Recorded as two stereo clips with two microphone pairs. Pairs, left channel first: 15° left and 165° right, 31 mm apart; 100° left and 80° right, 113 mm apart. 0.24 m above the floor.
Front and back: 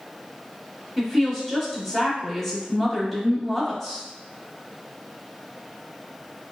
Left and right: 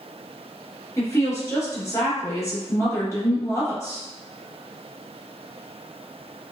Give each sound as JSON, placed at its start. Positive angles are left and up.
{"t": 1.0, "sound": "a woman speaking", "azimuth_deg": 90, "distance_m": 1.2}